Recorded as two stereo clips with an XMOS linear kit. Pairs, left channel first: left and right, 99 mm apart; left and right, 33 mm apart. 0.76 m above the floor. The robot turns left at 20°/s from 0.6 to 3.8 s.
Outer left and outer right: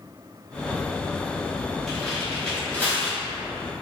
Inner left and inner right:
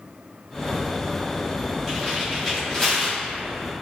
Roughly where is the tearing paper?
Centre.